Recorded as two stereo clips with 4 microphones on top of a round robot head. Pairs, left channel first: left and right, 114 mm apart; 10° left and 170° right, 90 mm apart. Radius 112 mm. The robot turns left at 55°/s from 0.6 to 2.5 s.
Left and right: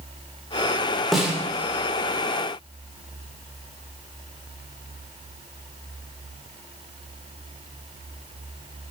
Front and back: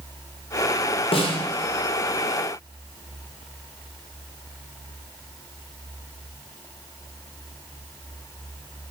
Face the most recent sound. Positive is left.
turn(degrees=-80)